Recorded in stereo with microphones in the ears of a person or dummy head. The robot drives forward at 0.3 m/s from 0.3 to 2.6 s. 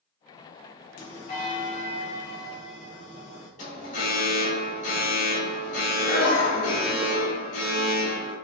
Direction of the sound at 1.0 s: 50° left (ahead or behind).